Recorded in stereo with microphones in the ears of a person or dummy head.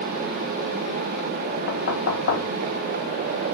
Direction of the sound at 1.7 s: 65° left (ahead or behind).